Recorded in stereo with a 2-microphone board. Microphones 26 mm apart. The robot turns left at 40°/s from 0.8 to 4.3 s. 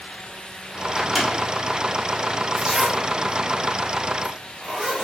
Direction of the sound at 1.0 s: 5° right (ahead or behind).